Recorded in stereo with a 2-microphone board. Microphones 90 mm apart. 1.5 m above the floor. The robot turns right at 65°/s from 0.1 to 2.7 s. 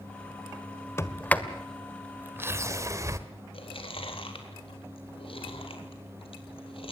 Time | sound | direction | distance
1.0 | a sliding door | 30° left (ahead or behind) | 1.5 m
3.5 | chewing | 75° left (ahead or behind) | 3.5 m